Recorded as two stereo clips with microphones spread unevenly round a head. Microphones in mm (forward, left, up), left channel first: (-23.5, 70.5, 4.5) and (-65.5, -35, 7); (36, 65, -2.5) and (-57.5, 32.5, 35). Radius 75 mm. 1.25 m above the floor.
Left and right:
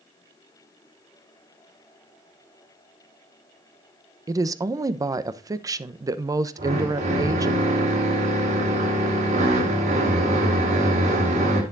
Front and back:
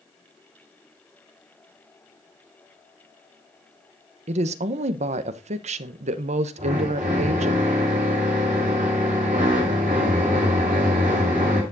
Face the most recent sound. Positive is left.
turn(degrees=-120)